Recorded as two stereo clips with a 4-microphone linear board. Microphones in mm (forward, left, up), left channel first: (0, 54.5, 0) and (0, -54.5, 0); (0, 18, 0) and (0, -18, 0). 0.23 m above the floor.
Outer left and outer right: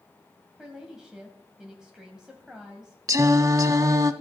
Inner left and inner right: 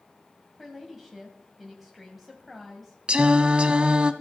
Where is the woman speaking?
5° right (ahead or behind), 1.5 m.